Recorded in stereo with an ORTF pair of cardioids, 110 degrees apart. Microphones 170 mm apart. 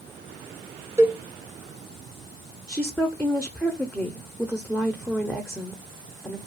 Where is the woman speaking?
Straight ahead, 0.5 m.